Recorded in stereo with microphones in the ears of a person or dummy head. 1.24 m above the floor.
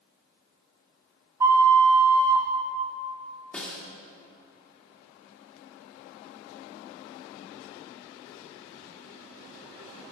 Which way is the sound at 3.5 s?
5° left (ahead or behind).